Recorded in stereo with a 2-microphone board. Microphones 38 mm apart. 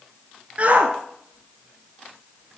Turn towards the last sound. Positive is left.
turn(degrees=-70)  # may be behind; listen again after turning